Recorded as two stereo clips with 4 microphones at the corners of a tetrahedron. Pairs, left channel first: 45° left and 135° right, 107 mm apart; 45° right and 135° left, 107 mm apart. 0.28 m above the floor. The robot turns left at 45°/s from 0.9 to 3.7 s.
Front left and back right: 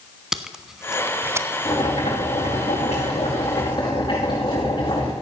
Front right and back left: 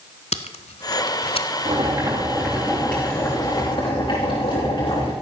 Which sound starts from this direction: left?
Boiling, at 1.6 s.